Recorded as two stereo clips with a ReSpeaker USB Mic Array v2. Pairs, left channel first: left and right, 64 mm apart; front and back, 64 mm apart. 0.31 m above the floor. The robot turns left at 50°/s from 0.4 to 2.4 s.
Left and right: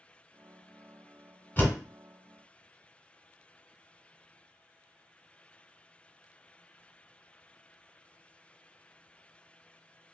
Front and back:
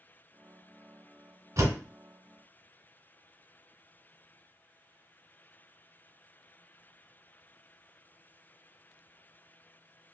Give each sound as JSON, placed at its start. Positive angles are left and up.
{"t": 1.6, "sound": "a door slam", "azimuth_deg": 150, "distance_m": 1.8}